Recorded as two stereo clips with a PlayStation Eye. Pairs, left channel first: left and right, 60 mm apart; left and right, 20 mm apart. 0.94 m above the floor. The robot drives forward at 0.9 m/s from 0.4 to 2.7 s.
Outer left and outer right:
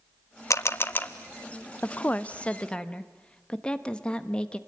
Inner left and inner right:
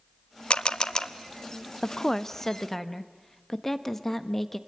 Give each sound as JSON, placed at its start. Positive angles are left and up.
{"t": 0.5, "sound": "a camera shutter", "side_deg": 60, "distance_m": 0.6}
{"t": 1.8, "sound": "a woman speaking", "side_deg": 35, "distance_m": 0.6}